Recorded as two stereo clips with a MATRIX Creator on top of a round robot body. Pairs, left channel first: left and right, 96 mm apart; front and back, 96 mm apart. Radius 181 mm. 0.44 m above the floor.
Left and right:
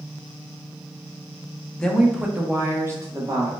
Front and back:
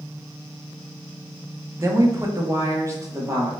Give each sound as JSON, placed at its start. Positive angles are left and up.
{"t": 1.8, "sound": "a woman speaking", "azimuth_deg": 160, "distance_m": 0.8}